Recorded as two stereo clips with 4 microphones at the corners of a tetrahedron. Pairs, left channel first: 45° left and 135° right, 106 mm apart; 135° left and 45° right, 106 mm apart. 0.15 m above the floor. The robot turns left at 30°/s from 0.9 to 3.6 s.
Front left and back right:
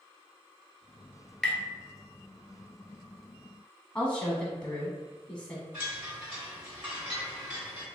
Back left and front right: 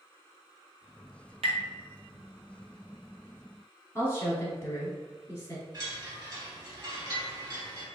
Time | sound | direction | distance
1.4 | tapping | 40° right | 0.8 m
4.0 | a woman speaking | 115° left | 1.2 m
5.7 | a chime | 75° right | 2.0 m